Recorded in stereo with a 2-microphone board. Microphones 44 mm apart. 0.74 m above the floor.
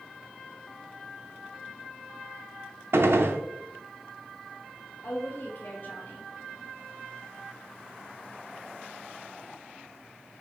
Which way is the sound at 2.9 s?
70° right (ahead or behind).